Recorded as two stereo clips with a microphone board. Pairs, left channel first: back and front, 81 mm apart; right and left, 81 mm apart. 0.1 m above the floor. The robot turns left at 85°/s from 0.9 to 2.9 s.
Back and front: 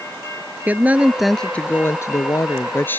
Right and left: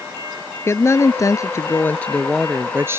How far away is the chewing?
No chewing in this recording.